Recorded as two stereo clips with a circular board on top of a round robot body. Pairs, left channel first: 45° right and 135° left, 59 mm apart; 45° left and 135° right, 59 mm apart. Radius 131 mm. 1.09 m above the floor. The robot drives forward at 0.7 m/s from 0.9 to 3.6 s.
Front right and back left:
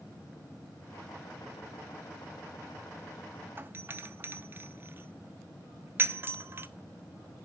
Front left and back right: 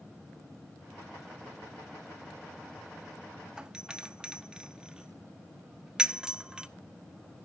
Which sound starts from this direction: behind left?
A doorbell, at 3.6 s.